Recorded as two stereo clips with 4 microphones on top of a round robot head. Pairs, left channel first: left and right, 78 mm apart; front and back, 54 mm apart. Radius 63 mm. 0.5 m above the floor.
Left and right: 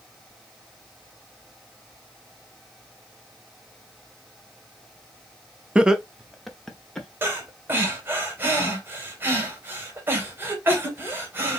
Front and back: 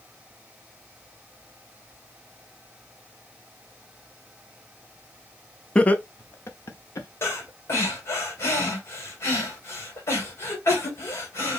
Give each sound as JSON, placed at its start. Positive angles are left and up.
{"t": 5.8, "sound": "laughter", "azimuth_deg": -35, "distance_m": 0.6}
{"t": 7.2, "sound": "breathing", "azimuth_deg": -30, "distance_m": 2.0}